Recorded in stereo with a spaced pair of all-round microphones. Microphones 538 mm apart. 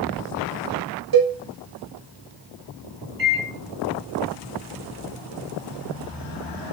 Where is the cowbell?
45° right (ahead or behind), 0.6 m.